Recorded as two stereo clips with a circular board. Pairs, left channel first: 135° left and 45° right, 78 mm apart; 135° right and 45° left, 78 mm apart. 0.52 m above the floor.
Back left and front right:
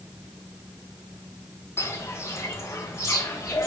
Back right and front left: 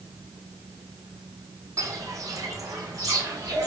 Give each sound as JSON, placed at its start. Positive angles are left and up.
{"t": 1.8, "sound": "footsteps", "azimuth_deg": 85, "distance_m": 1.1}